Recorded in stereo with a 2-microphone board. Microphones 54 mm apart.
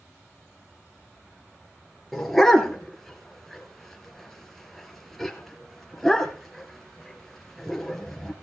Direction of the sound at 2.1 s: 5° left (ahead or behind).